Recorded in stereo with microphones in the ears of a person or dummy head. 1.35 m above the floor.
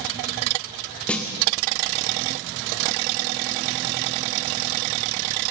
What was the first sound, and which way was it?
A snare drum, 10° left (ahead or behind).